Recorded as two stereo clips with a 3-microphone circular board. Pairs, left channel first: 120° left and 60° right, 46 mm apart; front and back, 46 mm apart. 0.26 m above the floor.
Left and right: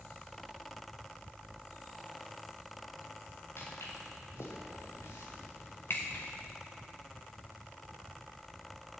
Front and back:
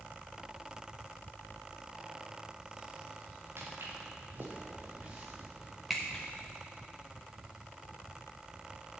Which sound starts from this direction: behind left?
Footsteps, at 3.6 s.